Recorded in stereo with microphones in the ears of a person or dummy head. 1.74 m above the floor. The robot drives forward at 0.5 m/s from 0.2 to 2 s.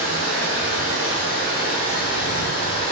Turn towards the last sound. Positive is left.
turn(degrees=-50)  # may be behind; listen again after turning